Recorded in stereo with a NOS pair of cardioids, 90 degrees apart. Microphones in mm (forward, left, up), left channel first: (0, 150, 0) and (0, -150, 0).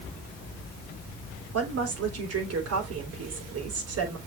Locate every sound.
1.5 s a woman speaking: 50° right, 3.5 m